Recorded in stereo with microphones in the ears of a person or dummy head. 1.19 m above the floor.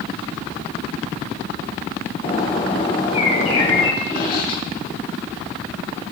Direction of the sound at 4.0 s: 55° left (ahead or behind).